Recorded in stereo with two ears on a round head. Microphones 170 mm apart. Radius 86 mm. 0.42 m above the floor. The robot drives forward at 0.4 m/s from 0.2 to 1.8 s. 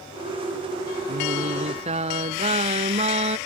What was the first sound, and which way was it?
Singing, 35° right (ahead or behind).